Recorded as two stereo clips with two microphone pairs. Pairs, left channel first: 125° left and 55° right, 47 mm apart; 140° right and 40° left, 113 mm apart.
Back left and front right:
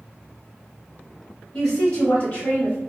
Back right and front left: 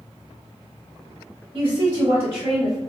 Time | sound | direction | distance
1.5 | a woman speaking | 55° left | 1.1 m